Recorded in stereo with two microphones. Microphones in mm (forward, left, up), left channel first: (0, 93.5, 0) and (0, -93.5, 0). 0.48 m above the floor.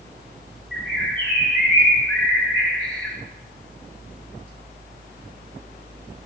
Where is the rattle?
I don't hear a rattle.